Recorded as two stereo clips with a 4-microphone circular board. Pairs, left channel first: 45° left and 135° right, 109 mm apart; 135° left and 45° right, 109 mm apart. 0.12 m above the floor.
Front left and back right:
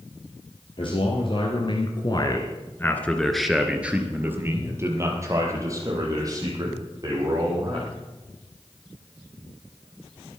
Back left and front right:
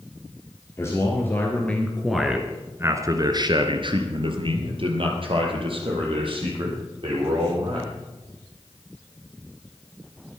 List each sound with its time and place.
0.8 s a man speaking: 75° left, 3 m; by 7.9 s 80° right, 7 m